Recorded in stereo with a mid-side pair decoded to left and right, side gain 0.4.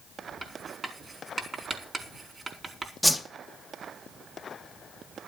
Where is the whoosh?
Straight ahead, 2 m.